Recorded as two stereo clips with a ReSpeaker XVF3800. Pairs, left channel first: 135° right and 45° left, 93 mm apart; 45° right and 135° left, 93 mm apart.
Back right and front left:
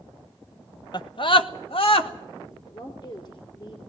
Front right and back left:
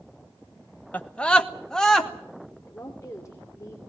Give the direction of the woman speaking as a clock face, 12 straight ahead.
3 o'clock.